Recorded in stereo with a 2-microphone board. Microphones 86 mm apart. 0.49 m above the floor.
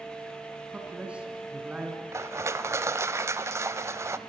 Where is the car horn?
I don't hear a car horn.